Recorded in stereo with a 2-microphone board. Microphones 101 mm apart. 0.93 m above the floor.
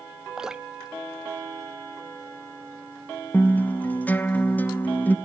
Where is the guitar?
20° left (ahead or behind), 0.7 m.